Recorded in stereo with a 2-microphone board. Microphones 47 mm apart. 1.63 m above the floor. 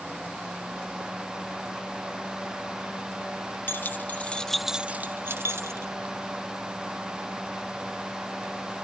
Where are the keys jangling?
45° left (ahead or behind); by 5.9 s 65° right (ahead or behind).